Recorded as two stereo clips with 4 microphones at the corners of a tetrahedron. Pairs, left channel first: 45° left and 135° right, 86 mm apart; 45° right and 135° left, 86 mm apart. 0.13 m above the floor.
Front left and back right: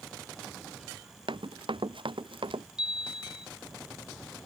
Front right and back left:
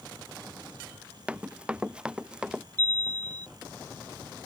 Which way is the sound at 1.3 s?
150° right.